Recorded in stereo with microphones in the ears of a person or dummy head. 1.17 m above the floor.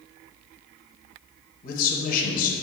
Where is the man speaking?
45° left (ahead or behind), 0.7 m.